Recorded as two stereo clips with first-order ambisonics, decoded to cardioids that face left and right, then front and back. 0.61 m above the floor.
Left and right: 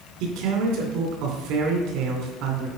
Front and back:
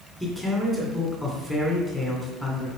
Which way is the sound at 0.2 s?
95° right.